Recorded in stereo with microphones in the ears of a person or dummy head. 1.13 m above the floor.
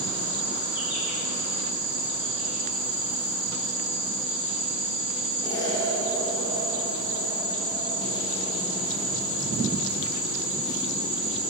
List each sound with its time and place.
0.0 s an insect: 10° right (ahead or behind), 2 m
5.4 s an explosion: 20° left (ahead or behind), 1.0 m